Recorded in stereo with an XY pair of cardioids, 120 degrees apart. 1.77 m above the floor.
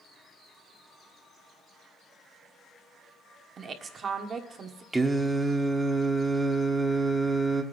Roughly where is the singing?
Ahead.